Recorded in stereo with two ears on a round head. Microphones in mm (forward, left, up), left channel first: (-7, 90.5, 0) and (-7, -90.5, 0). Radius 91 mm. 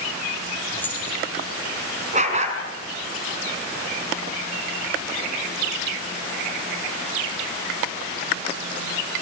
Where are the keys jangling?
10° left (ahead or behind), 8.5 m.